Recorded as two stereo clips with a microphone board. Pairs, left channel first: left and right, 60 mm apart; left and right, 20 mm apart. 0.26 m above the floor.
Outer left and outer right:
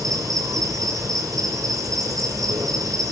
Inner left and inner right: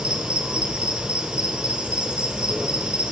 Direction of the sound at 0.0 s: 80° right.